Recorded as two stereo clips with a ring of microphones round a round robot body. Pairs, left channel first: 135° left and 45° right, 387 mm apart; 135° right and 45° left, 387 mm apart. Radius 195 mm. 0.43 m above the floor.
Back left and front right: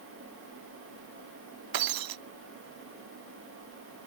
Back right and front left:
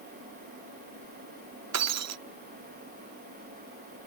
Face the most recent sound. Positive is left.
turn(degrees=-5)